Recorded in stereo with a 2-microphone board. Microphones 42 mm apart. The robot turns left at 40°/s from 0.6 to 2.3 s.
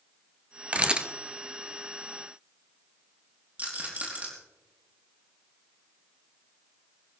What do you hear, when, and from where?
0.7 s a camera shutter: 30° right (ahead or behind), 1.0 m; by 1.1 s 20° right (ahead or behind), 1.0 m
3.6 s a rattle: 35° right (ahead or behind), 5 m